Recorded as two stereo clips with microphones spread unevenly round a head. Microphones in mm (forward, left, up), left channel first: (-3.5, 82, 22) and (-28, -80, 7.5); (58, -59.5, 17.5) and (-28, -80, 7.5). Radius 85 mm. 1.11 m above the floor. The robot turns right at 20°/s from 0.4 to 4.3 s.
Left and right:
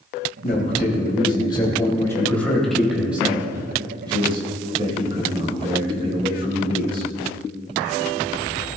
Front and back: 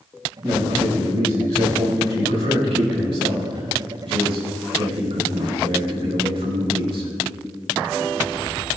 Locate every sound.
0.4 s a man speaking: 125° left, 4 m; by 7.1 s 160° right, 4 m